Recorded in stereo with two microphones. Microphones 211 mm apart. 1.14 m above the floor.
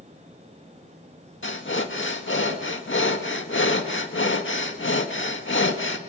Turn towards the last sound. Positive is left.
turn(degrees=65)  # may be behind; listen again after turning